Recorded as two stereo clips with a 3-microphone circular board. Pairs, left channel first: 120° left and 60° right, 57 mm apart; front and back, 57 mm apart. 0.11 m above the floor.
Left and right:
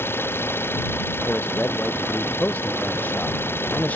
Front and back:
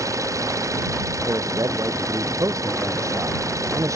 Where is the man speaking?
Straight behind.